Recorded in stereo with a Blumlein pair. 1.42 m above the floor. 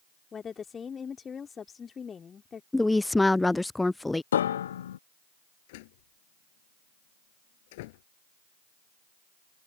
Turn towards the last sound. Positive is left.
turn(degrees=50)